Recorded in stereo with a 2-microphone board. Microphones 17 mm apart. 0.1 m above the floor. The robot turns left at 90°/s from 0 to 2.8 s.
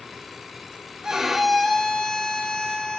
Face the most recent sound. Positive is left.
turn(degrees=60)